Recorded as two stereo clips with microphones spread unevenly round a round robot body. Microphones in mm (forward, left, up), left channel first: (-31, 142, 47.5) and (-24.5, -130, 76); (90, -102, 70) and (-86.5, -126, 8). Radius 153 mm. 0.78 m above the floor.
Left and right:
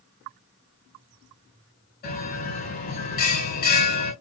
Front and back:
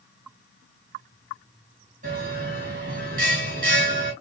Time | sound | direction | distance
2.0 | a bell | 145° left | 3.5 m